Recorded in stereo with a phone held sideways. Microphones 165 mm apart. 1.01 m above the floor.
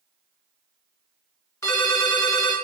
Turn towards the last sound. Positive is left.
turn(degrees=20)  # may be behind; listen again after turning